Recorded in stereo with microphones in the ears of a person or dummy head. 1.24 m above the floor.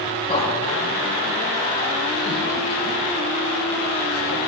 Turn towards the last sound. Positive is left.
turn(degrees=85)